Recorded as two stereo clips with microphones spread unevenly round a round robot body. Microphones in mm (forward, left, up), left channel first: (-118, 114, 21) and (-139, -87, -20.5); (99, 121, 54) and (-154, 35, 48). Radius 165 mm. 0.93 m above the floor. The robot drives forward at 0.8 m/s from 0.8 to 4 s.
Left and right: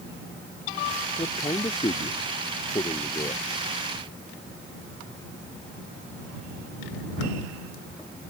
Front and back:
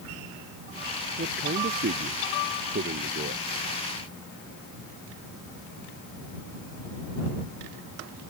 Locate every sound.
1.2 s a man speaking: 145° left; by 3.4 s 150° left